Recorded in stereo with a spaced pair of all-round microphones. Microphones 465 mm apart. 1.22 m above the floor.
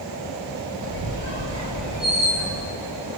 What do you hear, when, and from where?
0.8 s a squeak: 65° right (ahead or behind), 4.5 m